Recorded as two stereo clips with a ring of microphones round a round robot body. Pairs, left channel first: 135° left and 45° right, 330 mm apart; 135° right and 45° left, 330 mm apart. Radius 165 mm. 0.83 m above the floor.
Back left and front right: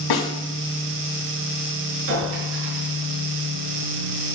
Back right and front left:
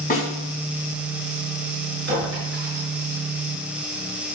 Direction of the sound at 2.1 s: 15° right.